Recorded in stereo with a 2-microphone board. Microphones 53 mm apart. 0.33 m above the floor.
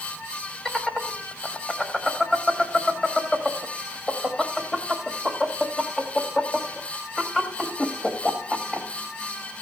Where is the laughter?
10° left (ahead or behind), 1.4 m.